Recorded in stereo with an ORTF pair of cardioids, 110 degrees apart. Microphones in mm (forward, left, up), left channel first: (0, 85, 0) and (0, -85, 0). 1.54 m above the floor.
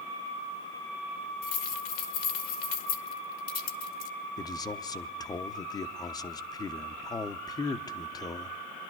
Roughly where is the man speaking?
Ahead left.